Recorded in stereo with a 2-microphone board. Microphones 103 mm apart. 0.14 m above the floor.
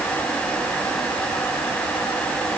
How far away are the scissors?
No scissors in this recording.